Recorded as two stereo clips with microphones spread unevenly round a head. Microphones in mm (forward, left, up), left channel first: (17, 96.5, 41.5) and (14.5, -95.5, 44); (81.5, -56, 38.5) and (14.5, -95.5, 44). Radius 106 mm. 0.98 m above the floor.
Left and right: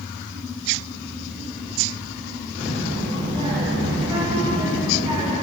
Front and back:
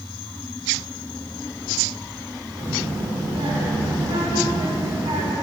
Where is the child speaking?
160° right, 1.5 m.